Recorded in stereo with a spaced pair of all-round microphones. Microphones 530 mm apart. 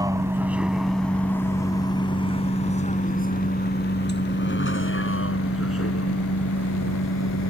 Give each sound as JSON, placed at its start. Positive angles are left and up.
{"t": 0.0, "sound": "a vehicle", "side_deg": -5}